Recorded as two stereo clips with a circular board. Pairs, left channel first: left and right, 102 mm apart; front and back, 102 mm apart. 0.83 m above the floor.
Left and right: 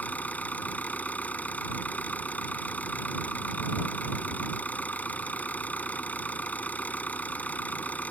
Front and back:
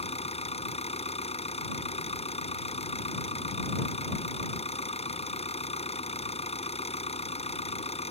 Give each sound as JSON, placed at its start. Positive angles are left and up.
{"t": 0.0, "sound": "an engine running", "azimuth_deg": 15}